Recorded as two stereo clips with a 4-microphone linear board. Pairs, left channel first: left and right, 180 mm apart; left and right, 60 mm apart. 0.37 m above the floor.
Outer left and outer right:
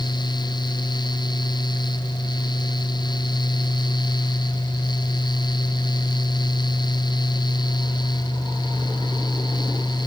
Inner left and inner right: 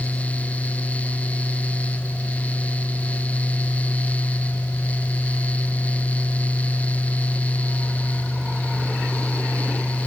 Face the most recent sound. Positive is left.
No sound to turn to.